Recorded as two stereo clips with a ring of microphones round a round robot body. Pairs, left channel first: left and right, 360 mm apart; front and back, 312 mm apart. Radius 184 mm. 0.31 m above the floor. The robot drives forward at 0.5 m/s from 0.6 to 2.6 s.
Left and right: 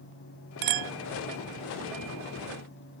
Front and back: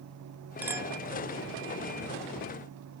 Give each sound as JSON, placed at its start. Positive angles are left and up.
{"t": 0.6, "sound": "a clink", "azimuth_deg": -95}